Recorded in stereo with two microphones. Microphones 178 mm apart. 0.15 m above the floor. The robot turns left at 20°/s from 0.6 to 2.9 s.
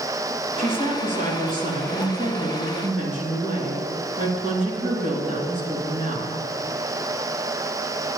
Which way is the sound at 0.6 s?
65° right.